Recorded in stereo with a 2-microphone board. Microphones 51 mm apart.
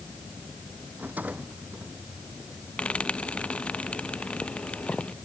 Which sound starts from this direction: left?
Frying, at 2.8 s.